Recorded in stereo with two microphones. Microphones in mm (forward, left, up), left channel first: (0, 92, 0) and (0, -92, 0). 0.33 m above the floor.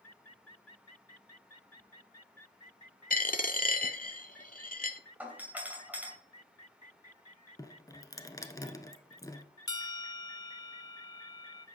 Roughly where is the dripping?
Centre.